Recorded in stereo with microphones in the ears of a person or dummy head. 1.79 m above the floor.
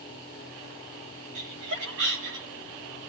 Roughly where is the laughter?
Right.